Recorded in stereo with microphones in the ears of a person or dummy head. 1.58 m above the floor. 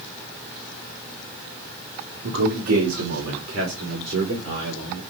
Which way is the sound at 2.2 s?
80° right.